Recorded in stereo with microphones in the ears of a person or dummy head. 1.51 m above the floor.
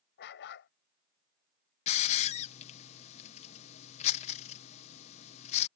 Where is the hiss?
40° left (ahead or behind).